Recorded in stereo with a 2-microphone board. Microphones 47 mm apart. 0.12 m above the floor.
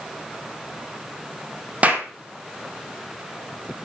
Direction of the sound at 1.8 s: 30° right (ahead or behind).